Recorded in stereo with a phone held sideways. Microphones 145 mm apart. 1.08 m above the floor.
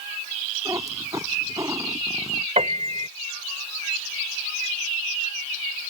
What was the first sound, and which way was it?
A cat meowing, 25° right (ahead or behind).